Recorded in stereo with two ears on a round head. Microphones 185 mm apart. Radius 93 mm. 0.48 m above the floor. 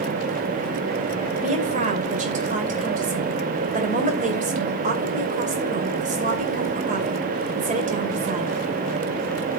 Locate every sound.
1.4 s a woman speaking: 35° right (ahead or behind), 2.5 m